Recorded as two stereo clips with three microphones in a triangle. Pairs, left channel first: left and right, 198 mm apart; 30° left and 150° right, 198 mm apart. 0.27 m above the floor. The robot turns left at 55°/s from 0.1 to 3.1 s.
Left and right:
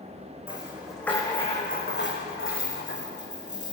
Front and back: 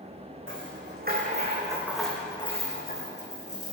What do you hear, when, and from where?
0.5 s a rattle: 155° right, 5.5 m; by 3.7 s 60° left, 5.5 m